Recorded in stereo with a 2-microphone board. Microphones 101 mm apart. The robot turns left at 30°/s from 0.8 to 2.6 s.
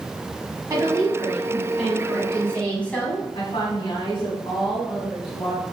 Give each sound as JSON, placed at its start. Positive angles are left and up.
{"t": 0.7, "sound": "a woman speaking", "azimuth_deg": -140, "distance_m": 2.0}
{"t": 3.4, "sound": "a woman speaking", "side_deg": 65, "distance_m": 2.0}